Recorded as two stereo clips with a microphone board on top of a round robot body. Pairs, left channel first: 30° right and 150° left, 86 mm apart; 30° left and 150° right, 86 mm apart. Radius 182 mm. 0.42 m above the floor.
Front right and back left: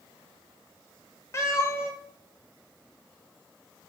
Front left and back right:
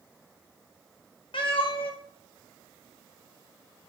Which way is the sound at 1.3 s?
30° left.